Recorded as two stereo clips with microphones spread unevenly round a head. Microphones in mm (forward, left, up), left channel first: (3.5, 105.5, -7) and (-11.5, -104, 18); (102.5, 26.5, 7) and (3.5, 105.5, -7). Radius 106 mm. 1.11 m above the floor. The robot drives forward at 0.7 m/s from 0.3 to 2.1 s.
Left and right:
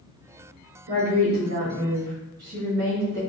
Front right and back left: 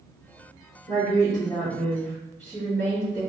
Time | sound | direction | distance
0.9 | a woman speaking | 100° right | 1.9 m